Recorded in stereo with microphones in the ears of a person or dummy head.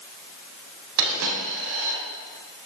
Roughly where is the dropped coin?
Right.